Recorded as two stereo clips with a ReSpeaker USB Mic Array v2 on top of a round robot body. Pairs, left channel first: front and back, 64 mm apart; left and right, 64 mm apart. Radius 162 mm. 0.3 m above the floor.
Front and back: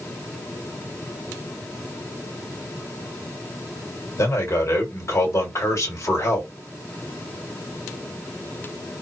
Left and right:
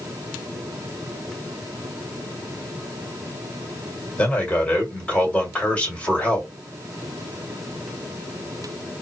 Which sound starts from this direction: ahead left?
A man speaking, at 4.2 s.